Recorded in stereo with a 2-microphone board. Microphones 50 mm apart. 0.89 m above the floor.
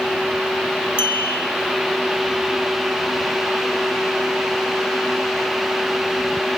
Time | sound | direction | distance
1.0 | a clink | 45° left (ahead or behind) | 1.7 m